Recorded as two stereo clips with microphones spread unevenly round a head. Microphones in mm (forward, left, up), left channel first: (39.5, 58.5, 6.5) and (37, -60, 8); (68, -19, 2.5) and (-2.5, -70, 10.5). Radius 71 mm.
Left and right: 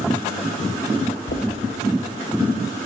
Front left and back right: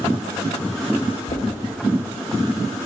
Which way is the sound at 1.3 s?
70° left.